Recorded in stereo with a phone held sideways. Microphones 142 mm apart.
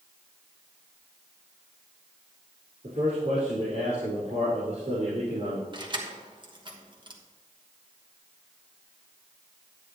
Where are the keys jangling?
35° right (ahead or behind), 1.2 m.